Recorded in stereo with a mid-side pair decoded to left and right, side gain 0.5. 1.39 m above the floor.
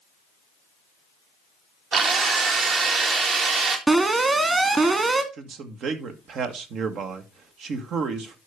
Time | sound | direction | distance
1.9 | a drill | 55° right | 2 m
3.9 | an alarm | 30° right | 2.0 m
5.3 | a man speaking | 60° right | 1.5 m